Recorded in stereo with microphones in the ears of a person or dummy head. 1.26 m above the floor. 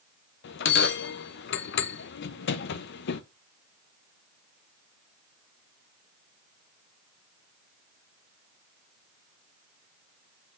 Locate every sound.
0.4 s a bell: 65° left (ahead or behind), 0.7 m